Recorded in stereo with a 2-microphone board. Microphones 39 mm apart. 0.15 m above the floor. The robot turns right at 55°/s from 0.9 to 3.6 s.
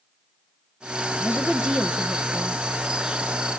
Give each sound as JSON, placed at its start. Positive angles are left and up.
{"t": 1.2, "sound": "a woman speaking", "side_deg": -10, "distance_m": 1.1}